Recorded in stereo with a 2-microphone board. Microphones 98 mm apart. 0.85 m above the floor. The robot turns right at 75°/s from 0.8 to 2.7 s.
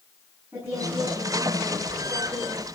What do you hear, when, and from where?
0.5 s a woman speaking: 155° right, 7.5 m; by 2.7 s 15° right, 7.5 m